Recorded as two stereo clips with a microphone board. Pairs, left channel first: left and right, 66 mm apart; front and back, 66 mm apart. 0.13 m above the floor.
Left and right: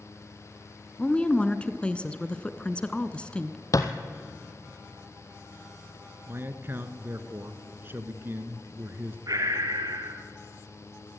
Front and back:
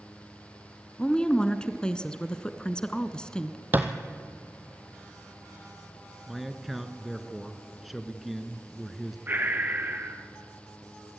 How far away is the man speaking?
About 1.4 m.